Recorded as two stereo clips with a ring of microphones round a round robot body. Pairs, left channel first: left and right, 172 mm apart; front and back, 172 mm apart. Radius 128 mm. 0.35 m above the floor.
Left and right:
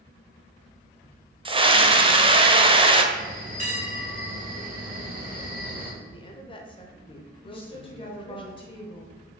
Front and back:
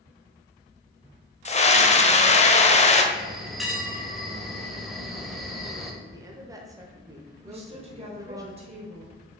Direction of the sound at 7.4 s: 140° left.